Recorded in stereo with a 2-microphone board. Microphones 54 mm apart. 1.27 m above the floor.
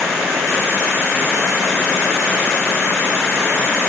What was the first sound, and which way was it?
Only background noise.